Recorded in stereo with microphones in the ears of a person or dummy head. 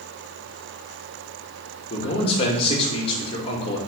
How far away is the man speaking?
About 2 m.